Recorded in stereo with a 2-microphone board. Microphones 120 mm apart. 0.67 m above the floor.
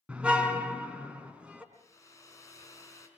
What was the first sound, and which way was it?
A car horn, 10° right (ahead or behind).